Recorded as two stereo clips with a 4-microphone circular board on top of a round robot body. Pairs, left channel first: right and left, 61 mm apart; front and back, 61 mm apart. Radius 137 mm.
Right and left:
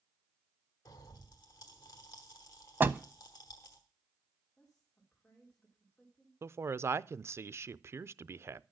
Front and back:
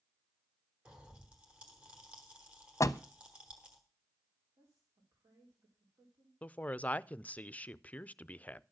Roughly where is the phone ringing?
I don't hear a phone ringing.